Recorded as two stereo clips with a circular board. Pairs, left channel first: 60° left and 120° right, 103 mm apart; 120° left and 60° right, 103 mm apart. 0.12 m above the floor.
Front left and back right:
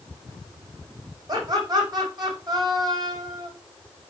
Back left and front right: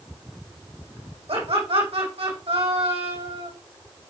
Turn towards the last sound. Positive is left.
turn(degrees=-75)